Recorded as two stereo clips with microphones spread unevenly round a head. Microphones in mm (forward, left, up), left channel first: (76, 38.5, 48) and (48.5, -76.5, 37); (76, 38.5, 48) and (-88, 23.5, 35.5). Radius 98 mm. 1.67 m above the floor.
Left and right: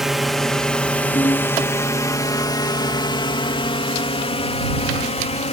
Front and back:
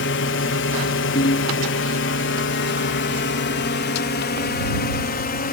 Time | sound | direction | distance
0.0 | a drone | 15° right | ?
1.1 | a ringtone | 20° left | ?